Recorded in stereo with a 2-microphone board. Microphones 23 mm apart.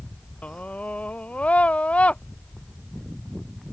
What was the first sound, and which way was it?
A scream, 75° left (ahead or behind).